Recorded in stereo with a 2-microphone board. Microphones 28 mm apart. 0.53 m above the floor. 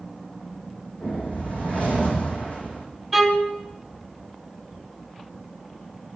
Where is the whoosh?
55° left (ahead or behind), 5 m.